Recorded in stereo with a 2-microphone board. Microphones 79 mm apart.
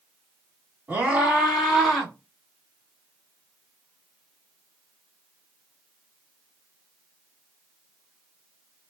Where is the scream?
20° right (ahead or behind), 1.4 m; by 2.1 s 5° left (ahead or behind), 1.9 m.